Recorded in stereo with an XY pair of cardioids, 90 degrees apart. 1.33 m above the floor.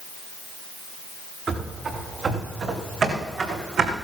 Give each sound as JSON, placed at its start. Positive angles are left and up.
{"t": 1.5, "sound": "running footsteps", "azimuth_deg": -60, "distance_m": 6.0}